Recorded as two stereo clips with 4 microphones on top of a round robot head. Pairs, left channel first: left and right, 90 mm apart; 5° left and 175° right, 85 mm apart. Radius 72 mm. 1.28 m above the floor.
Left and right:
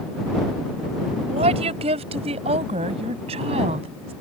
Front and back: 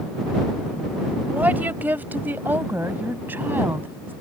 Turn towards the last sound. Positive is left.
turn(degrees=-100)